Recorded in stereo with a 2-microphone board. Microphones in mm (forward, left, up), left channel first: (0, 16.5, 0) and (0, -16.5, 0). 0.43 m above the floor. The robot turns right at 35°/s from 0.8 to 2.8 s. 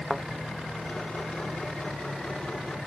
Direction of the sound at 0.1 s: 5° left (ahead or behind).